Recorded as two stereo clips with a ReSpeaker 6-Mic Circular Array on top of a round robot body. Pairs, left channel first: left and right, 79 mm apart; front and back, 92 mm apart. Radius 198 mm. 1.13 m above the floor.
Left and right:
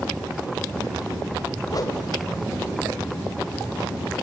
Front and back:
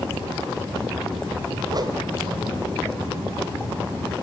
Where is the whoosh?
135° left, 1.3 m.